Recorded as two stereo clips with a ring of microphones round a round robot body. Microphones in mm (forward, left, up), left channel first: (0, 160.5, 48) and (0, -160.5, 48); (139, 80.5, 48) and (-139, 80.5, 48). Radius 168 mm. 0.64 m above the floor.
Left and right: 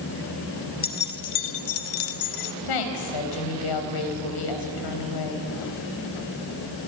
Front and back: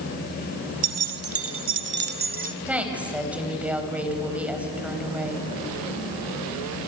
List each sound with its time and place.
0.8 s keys jangling: 155° left, 1.7 m; by 2.6 s 115° left, 1.5 m
2.7 s a woman speaking: 95° left, 4.5 m